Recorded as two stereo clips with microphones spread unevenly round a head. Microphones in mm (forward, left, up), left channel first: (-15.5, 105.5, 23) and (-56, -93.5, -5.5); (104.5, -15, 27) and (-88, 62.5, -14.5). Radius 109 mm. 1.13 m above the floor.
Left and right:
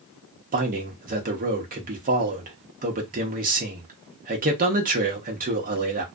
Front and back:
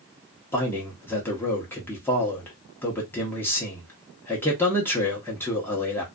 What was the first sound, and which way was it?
A man speaking, 110° right.